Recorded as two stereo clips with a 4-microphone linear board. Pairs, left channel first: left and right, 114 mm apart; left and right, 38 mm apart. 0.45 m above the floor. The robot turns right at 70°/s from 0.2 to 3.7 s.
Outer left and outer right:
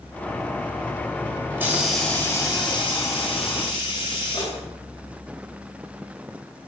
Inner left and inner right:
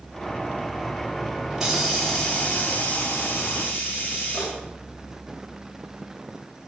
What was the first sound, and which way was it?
A hiss, 30° right.